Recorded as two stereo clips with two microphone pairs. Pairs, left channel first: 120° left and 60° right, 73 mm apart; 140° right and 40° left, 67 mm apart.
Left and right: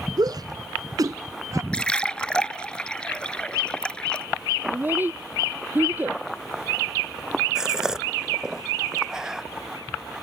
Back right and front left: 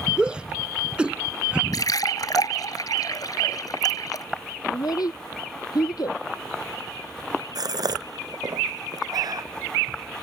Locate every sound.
0.2 s a shout: 40° right; by 1.6 s 35° right
1.7 s a splash: 165° right
4.7 s a child speaking: 125° right
7.5 s a gasp: 20° left